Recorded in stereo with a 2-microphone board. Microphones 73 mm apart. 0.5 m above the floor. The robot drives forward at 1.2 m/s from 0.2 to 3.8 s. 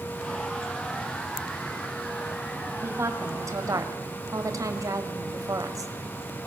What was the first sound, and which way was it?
A woman speaking, 35° right (ahead or behind).